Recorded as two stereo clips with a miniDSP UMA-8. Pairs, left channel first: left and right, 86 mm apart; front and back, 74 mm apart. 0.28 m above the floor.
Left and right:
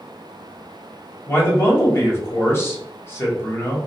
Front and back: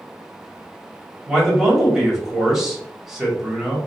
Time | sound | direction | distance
1.3 | a man speaking | 105° left | 0.9 m